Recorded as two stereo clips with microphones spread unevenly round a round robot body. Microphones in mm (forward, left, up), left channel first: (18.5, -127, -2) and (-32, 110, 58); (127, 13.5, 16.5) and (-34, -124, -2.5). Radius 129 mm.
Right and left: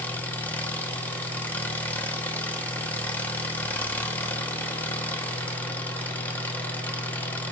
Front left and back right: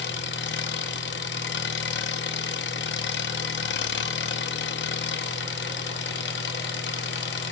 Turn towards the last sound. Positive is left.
turn(degrees=0)